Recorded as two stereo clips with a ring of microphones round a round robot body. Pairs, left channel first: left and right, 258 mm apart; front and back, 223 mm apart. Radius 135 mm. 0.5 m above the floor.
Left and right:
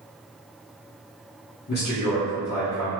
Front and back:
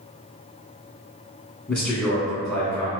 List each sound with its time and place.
1.7 s a man speaking: 80° left, 1.0 m